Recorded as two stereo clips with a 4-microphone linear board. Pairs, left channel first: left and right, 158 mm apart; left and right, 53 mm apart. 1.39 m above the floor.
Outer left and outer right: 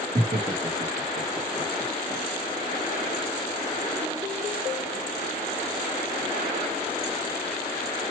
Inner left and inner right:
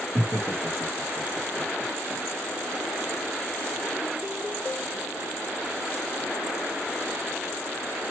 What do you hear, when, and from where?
0.1 s laughter: 65° right (ahead or behind), 2.5 m; by 2.2 s 45° right (ahead or behind), 1.6 m